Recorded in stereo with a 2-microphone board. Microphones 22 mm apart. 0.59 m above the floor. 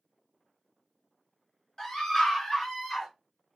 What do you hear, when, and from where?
1.8 s a scream: 25° left (ahead or behind), 1.3 m; by 3.1 s 15° left (ahead or behind), 1.1 m